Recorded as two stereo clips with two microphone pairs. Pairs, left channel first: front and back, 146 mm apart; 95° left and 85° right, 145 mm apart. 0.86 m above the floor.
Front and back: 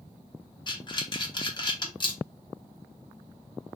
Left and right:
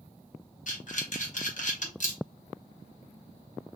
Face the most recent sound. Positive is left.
turn(degrees=60)